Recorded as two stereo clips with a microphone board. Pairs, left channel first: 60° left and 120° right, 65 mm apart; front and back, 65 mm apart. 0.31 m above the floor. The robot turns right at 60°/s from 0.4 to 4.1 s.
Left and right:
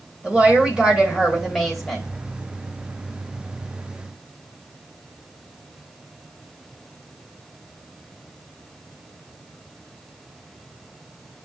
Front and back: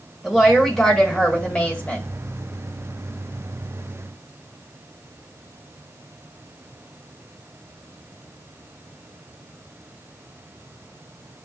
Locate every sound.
0.2 s a woman speaking: 110° right, 1.4 m; by 2.1 s 10° right, 1.4 m